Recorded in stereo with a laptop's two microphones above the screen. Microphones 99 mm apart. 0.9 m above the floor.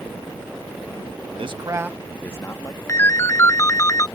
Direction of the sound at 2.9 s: 30° left (ahead or behind).